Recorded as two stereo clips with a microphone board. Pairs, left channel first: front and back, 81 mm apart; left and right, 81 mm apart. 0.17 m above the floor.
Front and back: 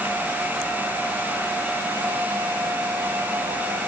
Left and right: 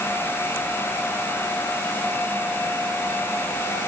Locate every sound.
Only background noise.